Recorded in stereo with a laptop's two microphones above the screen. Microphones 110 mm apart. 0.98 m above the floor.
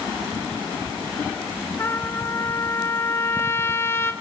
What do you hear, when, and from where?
1.8 s a trumpet: 25° left (ahead or behind), 1.1 m